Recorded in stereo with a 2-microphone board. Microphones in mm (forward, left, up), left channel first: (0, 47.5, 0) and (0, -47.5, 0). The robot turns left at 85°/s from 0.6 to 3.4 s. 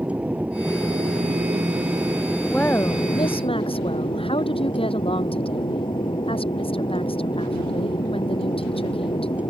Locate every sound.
0.0 s an aircraft: 15° right; by 9.5 s 105° left
2.5 s a woman speaking: 175° left; by 9.4 s 95° left